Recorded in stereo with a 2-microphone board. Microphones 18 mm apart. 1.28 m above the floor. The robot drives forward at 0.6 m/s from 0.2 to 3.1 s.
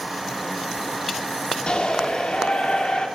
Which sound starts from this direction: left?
A shout, at 1.7 s.